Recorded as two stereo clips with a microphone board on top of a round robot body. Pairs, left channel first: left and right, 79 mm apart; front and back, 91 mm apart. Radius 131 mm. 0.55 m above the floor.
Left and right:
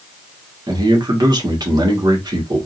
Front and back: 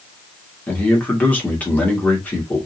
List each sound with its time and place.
0.7 s a man speaking: 70° right, 1.8 m